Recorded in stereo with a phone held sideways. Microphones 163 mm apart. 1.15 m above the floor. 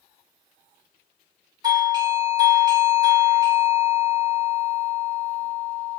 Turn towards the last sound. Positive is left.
turn(degrees=-25)  # may be behind; listen again after turning